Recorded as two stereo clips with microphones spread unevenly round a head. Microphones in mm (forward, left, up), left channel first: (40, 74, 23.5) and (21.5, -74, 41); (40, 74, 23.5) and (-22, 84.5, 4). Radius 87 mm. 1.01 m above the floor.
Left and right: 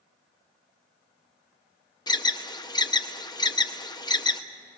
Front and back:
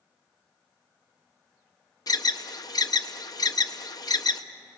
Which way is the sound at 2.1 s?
20° left.